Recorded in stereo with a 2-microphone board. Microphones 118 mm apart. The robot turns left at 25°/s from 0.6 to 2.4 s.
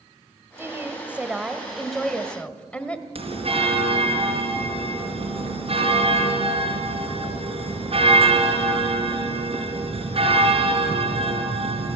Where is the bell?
55° right (ahead or behind), 4 m.